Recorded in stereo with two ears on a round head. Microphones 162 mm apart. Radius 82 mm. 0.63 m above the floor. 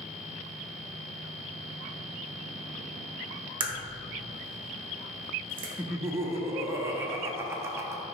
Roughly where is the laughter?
Centre.